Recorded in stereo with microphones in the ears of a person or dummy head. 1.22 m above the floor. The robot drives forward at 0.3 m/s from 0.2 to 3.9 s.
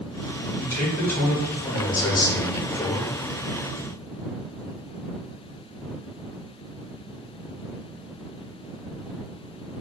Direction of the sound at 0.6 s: 15° left (ahead or behind).